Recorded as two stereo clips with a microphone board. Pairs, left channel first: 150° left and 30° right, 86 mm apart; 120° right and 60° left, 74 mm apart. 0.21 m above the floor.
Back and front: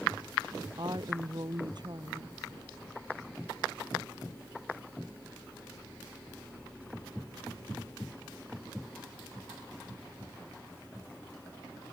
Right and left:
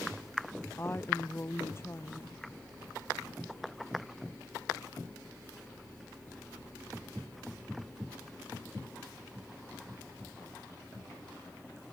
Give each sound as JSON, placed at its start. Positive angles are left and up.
{"t": 0.8, "sound": "a woman speaking", "azimuth_deg": -65}